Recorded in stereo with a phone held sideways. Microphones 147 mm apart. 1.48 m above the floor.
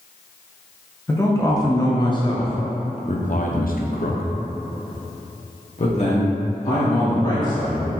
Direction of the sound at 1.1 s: 15° left (ahead or behind).